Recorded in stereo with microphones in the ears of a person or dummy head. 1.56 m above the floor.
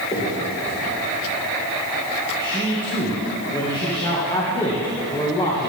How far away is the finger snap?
About 4 m.